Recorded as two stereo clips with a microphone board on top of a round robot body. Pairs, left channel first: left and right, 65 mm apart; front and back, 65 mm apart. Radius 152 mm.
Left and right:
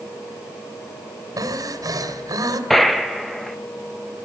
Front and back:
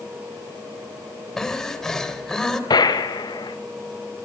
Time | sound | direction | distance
1.4 | breathing | 80° right | 2.5 m
2.7 | a gunshot | 5° left | 1.5 m